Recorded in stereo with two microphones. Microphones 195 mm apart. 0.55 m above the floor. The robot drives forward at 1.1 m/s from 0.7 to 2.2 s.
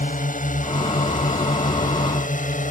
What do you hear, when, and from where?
0.0 s a drone: 40° left (ahead or behind)